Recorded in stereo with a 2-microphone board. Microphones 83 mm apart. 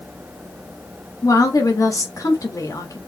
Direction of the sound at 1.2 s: 45° left (ahead or behind).